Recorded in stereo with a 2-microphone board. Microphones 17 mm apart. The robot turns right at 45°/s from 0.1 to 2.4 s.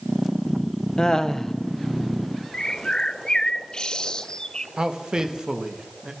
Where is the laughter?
45° left (ahead or behind), 1.1 m; by 1.6 s 20° left (ahead or behind), 1.1 m.